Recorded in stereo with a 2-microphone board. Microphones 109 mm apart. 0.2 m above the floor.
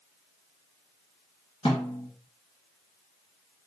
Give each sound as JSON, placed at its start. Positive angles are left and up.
{"t": 1.6, "sound": "a snare drum", "side_deg": 65, "distance_m": 1.6}